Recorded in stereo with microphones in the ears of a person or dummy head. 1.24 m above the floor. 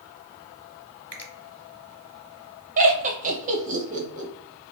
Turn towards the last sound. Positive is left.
turn(degrees=-40)  # may be behind; listen again after turning